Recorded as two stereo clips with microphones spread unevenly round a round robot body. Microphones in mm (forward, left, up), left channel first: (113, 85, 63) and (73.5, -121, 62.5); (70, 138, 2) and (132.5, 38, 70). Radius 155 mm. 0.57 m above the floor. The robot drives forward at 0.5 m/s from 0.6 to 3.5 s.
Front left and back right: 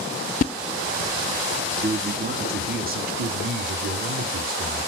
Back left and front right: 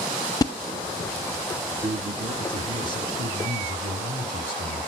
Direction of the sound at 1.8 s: 110° right.